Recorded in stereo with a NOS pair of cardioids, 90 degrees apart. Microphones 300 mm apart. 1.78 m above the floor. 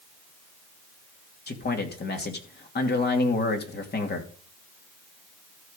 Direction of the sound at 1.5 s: 35° left.